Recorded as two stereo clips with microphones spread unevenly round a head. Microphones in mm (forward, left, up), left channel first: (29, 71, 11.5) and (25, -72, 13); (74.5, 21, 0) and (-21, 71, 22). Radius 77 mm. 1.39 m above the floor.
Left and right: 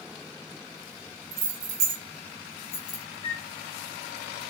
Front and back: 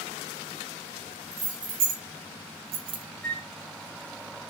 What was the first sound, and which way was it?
Keys jangling, 145° right.